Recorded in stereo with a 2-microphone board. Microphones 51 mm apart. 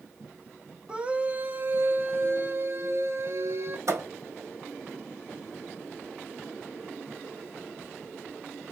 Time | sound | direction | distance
0.9 | a scream | 15° right (ahead or behind) | 1.2 m
3.9 | a thud | 70° right (ahead or behind) | 3 m